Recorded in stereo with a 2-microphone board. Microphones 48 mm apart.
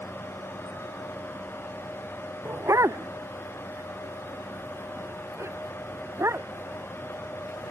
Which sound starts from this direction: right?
A dog barking, at 2.5 s.